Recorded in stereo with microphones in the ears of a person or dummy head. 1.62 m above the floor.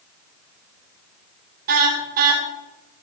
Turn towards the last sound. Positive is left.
turn(degrees=-45)  # may be behind; listen again after turning